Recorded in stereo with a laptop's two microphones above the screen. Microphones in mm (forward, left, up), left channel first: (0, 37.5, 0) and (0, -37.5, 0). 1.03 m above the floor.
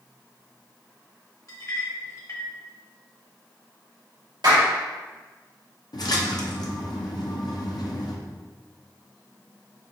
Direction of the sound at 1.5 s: 50° left (ahead or behind).